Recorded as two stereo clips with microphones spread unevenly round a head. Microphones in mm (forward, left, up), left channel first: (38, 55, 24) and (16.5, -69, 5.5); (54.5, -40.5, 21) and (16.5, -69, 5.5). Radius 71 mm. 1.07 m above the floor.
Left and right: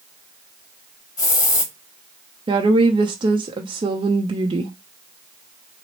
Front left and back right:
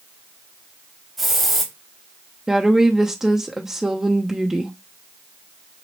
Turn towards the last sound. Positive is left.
turn(degrees=-90)